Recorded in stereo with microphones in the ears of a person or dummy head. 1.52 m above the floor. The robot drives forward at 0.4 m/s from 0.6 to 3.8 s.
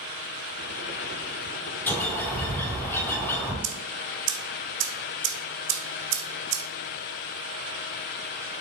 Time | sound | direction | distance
1.9 | a bird | 10° left (ahead or behind) | 3.5 m
3.6 | ticking | 65° right (ahead or behind) | 1.6 m